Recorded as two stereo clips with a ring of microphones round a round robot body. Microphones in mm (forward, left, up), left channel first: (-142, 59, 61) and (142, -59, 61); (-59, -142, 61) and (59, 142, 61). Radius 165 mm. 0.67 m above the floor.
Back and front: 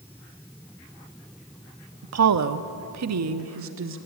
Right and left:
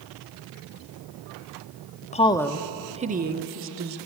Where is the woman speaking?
55° right, 1.0 m; by 4.0 s 25° left, 1.7 m.